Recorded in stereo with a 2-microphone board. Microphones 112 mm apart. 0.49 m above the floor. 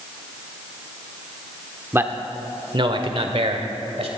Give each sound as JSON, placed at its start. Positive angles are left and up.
{"t": 1.9, "sound": "a man speaking", "side_deg": -20, "distance_m": 0.9}